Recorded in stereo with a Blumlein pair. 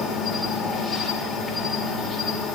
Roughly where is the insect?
Ahead.